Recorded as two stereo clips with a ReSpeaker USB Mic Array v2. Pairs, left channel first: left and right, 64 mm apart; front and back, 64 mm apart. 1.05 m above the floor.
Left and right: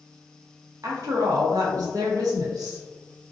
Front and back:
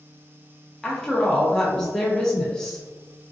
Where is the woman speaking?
85° right, 0.8 m.